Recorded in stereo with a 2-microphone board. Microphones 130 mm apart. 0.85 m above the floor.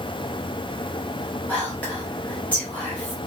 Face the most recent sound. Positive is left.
turn(degrees=10)  # may be behind; listen again after turning